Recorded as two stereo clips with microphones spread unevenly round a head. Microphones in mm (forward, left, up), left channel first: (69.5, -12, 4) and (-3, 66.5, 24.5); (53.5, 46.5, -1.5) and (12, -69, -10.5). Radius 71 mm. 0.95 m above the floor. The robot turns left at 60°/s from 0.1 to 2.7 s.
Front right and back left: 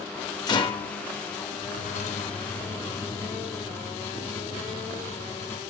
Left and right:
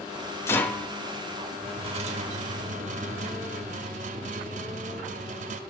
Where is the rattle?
10° left, 0.6 m; by 5.6 s 125° right, 0.6 m.